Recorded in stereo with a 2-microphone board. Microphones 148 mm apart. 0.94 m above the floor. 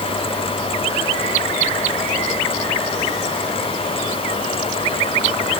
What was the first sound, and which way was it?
Only background noise.